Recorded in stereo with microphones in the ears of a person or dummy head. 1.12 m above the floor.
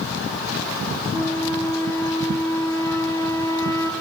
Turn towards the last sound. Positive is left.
turn(degrees=10)  # may be behind; listen again after turning